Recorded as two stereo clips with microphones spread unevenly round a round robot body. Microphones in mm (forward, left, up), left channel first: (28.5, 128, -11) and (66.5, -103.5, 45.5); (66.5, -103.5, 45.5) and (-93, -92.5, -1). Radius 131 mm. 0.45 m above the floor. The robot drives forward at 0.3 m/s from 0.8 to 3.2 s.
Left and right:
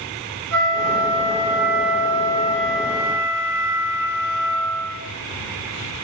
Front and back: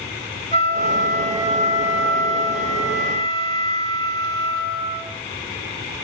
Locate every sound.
0.5 s a flute: 55° right, 3.5 m; by 5.0 s 65° right, 3 m